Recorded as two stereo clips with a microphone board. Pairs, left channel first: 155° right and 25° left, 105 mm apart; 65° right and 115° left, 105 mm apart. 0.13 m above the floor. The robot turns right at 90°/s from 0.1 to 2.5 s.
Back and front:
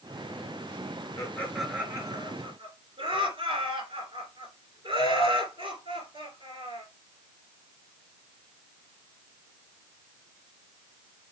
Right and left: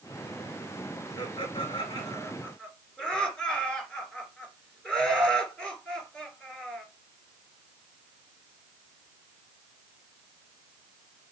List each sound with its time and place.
1.2 s laughter: 110° right, 2.5 m; by 6.8 s 10° left, 2.5 m